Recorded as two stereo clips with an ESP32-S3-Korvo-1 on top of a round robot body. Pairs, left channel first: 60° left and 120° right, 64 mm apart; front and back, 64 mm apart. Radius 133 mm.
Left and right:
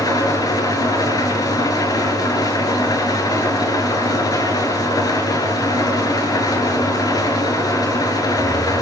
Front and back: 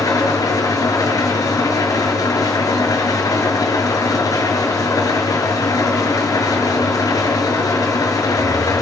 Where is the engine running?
35° left, 7 m.